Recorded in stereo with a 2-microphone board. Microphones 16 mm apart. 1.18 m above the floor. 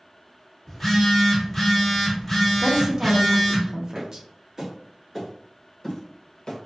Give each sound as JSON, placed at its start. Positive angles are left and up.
{"t": 0.7, "sound": "a phone buzzing", "side_deg": 10, "distance_m": 1.6}
{"t": 2.6, "sound": "a woman speaking", "side_deg": -40, "distance_m": 0.6}
{"t": 4.0, "sound": "footsteps", "side_deg": -40, "distance_m": 1.4}